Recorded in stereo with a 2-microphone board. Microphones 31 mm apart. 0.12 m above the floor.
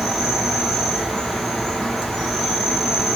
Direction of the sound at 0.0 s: 10° left (ahead or behind).